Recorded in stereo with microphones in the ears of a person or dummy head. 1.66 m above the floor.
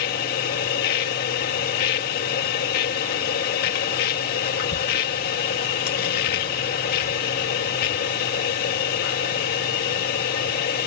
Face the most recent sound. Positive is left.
turn(degrees=60)  # may be behind; listen again after turning